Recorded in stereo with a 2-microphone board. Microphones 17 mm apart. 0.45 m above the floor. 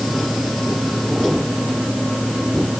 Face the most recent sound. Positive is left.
No sound to turn to.